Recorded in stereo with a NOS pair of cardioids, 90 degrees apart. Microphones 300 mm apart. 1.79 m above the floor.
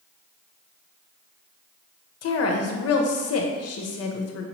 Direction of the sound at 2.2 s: 55° left.